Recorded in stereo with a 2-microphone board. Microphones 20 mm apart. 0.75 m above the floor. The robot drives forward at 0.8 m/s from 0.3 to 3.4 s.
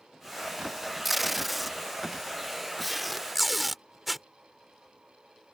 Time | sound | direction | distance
1.1 | tape being pulled | 10° right (ahead or behind) | ?